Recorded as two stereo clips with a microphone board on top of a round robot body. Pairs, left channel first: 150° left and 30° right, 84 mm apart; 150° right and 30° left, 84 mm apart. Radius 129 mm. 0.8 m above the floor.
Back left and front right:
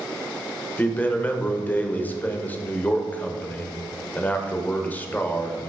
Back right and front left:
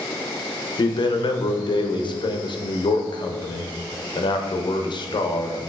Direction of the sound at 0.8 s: 140° right.